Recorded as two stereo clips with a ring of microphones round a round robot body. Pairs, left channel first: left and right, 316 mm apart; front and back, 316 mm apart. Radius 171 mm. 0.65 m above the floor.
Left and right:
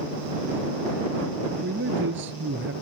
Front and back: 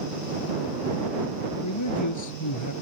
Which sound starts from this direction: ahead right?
A man speaking, at 1.6 s.